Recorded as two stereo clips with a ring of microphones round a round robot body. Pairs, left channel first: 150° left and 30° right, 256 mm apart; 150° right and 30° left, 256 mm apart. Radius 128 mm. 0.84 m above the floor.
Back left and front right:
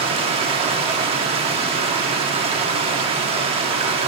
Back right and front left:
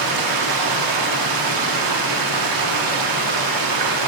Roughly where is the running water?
Ahead left.